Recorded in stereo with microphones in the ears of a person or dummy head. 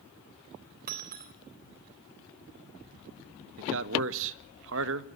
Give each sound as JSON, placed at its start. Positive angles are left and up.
{"t": 0.9, "sound": "breaking glass", "side_deg": -50, "distance_m": 3.0}
{"t": 3.6, "sound": "a man speaking", "side_deg": -65, "distance_m": 1.6}